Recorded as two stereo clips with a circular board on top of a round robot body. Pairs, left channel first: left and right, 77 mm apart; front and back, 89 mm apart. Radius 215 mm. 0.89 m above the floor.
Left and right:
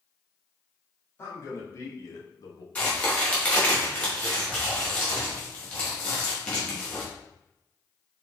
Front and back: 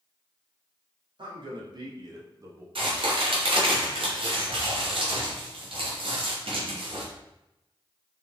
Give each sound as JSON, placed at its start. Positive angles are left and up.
{"t": 1.2, "sound": "a man speaking", "azimuth_deg": 150, "distance_m": 2.5}
{"t": 2.8, "sound": "a crack", "azimuth_deg": 165, "distance_m": 2.5}